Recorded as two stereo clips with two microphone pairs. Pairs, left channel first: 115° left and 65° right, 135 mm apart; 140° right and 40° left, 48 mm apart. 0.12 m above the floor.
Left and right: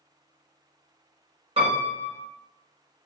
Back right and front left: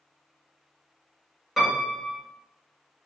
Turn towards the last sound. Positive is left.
turn(degrees=-45)